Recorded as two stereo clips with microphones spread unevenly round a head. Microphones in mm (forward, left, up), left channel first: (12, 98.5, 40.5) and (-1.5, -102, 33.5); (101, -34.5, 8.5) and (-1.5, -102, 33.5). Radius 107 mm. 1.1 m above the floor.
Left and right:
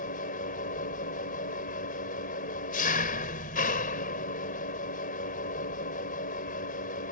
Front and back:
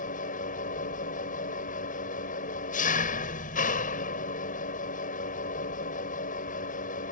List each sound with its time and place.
0.0 s an engine running: 35° left